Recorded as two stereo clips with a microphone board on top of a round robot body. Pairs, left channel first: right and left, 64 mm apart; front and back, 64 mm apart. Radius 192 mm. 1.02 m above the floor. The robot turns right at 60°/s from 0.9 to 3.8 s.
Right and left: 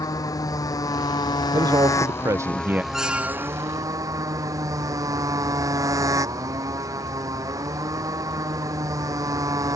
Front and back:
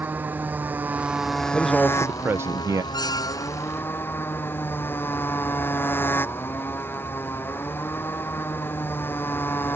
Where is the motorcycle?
115° right; by 9.8 s 60° left.